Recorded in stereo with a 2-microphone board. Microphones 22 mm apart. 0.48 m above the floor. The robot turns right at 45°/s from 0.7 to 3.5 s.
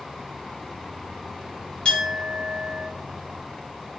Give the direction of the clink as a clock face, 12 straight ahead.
10 o'clock.